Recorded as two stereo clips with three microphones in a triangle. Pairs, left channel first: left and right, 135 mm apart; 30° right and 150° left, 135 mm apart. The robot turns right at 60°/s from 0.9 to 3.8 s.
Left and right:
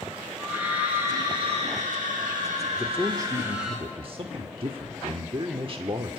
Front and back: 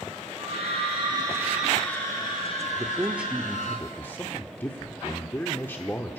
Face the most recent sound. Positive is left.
turn(degrees=-95)